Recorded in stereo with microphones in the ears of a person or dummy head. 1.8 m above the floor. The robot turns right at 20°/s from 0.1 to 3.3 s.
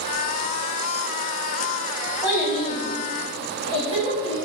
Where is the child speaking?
5° right (ahead or behind), 1.3 m; by 4.4 s 25° right (ahead or behind), 1.3 m.